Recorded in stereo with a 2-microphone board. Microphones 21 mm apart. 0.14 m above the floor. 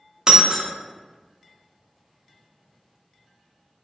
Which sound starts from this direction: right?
Breaking glass, at 0.3 s.